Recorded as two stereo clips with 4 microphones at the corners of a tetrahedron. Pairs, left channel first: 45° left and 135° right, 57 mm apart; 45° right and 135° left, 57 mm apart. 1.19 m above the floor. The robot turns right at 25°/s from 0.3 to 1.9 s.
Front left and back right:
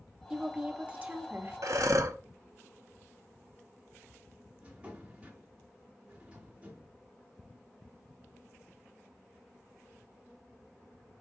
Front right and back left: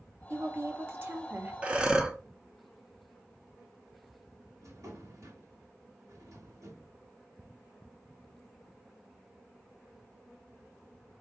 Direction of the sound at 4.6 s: 160° left.